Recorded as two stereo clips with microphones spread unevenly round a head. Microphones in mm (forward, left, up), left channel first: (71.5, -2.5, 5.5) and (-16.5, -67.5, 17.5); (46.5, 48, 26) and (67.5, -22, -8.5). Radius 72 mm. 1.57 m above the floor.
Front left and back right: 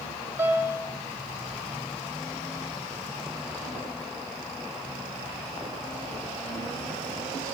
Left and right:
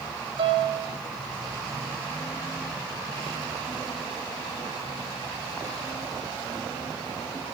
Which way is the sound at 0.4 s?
95° right.